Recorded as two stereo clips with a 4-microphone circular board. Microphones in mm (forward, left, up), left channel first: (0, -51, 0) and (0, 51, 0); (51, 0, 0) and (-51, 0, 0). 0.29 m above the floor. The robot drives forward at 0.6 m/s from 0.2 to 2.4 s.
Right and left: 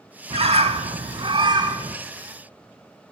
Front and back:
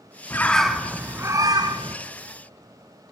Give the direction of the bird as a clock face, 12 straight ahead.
10 o'clock.